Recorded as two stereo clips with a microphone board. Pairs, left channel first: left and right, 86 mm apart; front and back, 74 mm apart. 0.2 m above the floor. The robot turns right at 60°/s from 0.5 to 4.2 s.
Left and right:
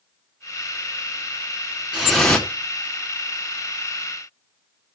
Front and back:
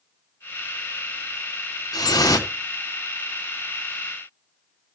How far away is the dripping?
About 1.7 m.